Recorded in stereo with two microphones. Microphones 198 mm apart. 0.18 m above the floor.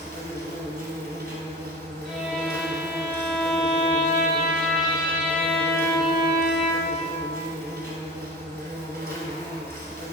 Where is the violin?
Centre (ahead or behind), 1.4 m.